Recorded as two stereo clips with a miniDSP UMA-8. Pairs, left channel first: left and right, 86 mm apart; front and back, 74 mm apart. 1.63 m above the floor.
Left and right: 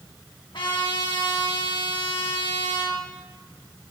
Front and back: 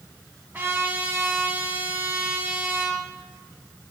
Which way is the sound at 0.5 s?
120° left.